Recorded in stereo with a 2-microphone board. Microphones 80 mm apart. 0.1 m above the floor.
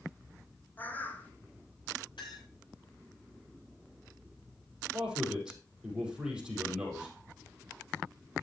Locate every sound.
0.8 s a bird: 25° left (ahead or behind), 1.2 m
2.2 s a clink: 85° left, 7.5 m
4.9 s a man speaking: 10° right (ahead or behind), 4.5 m